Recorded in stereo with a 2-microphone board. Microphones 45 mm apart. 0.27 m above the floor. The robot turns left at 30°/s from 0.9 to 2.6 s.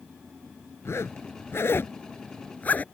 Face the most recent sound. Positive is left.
turn(degrees=40)  # may be behind; listen again after turning